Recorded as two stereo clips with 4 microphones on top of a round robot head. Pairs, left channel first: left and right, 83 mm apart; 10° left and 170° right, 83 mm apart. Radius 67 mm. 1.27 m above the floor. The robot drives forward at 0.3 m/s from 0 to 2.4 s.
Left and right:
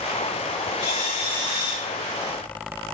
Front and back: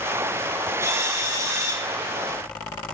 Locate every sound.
0.8 s a drill: 140° left, 5 m